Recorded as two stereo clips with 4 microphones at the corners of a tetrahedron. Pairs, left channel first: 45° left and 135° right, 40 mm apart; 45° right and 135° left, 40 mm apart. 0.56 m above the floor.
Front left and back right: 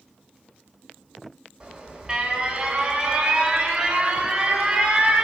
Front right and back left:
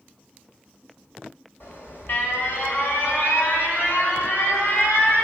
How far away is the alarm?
About 4 m.